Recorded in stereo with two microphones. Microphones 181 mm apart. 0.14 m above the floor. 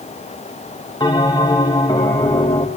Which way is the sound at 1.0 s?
20° left (ahead or behind).